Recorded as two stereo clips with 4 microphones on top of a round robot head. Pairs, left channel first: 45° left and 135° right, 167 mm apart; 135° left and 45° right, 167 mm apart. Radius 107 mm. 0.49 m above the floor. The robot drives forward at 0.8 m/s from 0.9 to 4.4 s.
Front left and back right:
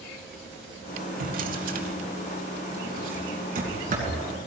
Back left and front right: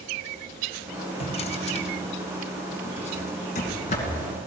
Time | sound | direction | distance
1.2 | a drawer | 170° right | 1.7 m